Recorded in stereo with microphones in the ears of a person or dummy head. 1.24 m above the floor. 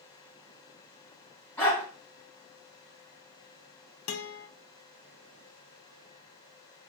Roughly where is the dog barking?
Centre.